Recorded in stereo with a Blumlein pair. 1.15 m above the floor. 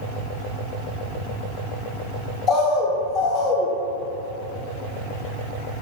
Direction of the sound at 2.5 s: 30° left.